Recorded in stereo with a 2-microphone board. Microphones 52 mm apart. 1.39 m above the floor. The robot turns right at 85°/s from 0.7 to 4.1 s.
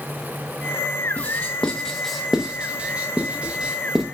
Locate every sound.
1.2 s writing: 30° left (ahead or behind), 0.6 m; by 4.0 s 5° right (ahead or behind), 0.6 m